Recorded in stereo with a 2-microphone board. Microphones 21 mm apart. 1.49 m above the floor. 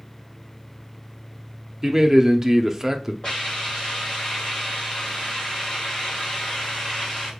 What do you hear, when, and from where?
1.8 s a man speaking: 15° right (ahead or behind), 0.6 m
3.2 s a hiss: 45° left (ahead or behind), 2.5 m